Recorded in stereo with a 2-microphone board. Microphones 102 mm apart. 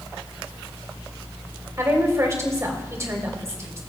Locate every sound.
1.8 s a woman speaking: 30° right (ahead or behind), 2 m